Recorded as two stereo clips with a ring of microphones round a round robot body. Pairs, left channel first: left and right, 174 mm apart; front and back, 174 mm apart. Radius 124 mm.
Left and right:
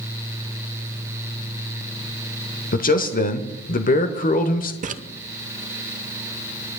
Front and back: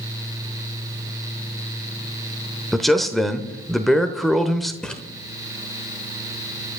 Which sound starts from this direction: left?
A man speaking, at 2.7 s.